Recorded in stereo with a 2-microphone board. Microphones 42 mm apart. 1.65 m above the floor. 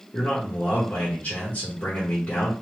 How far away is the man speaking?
About 1.3 m.